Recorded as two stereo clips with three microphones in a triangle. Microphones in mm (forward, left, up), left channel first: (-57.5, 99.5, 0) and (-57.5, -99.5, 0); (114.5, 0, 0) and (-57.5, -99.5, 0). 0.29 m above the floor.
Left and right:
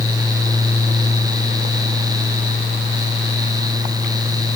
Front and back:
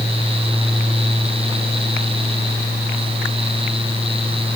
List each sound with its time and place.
Only background noise.